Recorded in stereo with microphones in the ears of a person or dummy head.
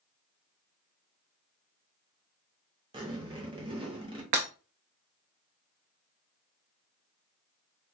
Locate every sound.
2.9 s a zipper: 25° right (ahead or behind), 0.7 m
4.3 s breaking glass: 30° right (ahead or behind), 0.6 m